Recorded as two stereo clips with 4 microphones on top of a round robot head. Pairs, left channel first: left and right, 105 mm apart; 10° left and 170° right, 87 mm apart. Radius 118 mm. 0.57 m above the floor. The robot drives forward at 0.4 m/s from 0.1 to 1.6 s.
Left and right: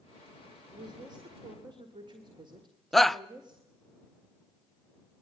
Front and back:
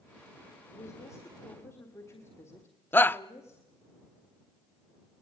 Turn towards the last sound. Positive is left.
turn(degrees=5)